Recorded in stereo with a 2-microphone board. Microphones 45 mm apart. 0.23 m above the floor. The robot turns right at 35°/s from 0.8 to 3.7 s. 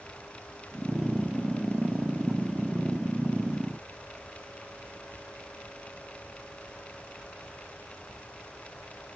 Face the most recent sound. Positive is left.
No sound to turn to.